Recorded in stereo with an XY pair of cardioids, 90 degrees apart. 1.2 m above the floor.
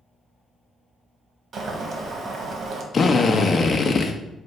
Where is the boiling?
60° right, 1.5 m.